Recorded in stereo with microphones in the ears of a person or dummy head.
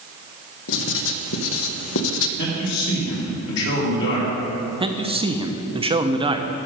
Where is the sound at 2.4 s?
70° left (ahead or behind), 3 m.